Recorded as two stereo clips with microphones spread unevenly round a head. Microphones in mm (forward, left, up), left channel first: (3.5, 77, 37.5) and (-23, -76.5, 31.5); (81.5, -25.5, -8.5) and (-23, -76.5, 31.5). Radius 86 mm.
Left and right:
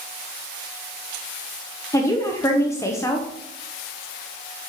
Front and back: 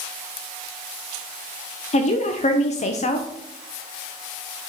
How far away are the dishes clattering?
I don't hear dishes clattering.